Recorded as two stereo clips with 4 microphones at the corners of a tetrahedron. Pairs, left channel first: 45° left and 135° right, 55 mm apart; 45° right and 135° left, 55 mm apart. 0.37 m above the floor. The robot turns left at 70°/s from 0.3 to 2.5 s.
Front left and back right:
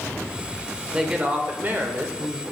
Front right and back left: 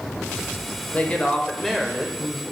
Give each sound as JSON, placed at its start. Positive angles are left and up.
{"t": 0.9, "sound": "a woman speaking", "azimuth_deg": -70, "distance_m": 0.9}